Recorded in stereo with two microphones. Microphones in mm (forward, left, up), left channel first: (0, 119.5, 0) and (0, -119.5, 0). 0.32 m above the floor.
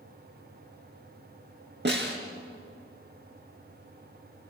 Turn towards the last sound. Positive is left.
turn(degrees=-50)  # may be behind; listen again after turning